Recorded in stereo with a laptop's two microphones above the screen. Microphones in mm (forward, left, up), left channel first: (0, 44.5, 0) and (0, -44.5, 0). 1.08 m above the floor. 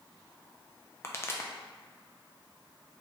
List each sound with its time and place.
1.0 s a pop: 30° left (ahead or behind), 0.5 m